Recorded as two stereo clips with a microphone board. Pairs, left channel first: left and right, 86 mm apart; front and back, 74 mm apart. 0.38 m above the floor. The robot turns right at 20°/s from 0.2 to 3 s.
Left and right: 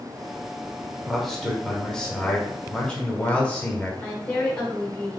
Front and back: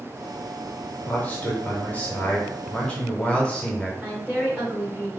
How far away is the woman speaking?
About 0.8 m.